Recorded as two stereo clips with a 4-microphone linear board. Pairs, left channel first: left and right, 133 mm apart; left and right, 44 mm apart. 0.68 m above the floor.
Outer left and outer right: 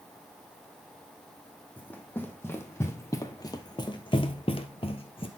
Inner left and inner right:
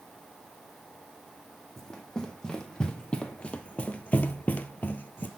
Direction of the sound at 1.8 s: 10° left (ahead or behind).